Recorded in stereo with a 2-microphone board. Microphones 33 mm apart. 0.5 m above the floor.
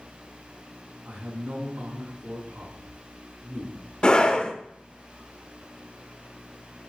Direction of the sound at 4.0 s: 25° left (ahead or behind).